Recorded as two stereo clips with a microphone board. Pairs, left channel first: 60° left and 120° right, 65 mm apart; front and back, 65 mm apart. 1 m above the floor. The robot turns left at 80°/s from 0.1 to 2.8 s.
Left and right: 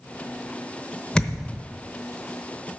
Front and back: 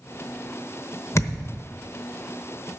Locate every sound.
1.1 s a thud: 10° right, 0.9 m; by 1.6 s 45° right, 0.9 m